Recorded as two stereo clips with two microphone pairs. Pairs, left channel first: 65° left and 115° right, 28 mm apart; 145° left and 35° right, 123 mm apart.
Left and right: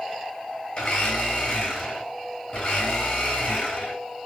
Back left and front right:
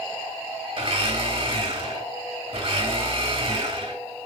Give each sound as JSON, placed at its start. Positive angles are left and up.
{"t": 0.8, "sound": "a blender", "azimuth_deg": 10, "distance_m": 3.5}